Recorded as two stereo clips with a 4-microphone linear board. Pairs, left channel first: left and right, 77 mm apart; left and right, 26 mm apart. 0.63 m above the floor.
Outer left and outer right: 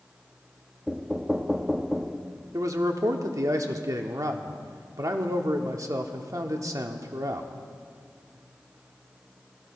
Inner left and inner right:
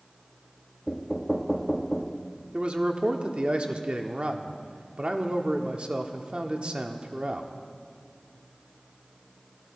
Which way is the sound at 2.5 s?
50° right (ahead or behind).